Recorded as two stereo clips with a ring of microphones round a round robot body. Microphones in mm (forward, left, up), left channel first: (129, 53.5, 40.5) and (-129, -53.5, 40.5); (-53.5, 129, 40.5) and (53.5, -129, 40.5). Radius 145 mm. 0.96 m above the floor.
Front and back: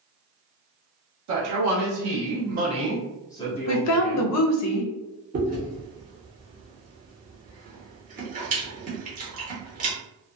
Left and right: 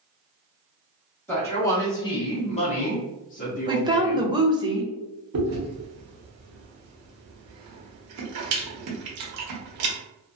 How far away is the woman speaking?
About 0.6 m.